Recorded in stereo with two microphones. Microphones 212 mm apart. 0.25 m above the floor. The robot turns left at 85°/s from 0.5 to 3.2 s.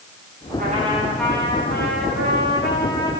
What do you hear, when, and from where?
0.6 s a trumpet: 130° right, 9.5 m; by 3.1 s 15° left, 9.5 m